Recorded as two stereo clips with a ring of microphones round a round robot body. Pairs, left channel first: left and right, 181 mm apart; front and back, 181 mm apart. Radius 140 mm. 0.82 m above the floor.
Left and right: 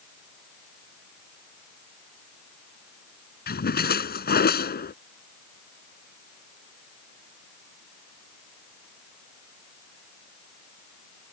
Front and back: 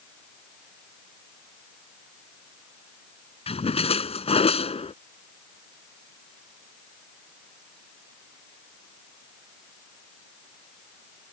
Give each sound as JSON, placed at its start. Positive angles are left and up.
{"t": 3.5, "sound": "a splash", "azimuth_deg": 60}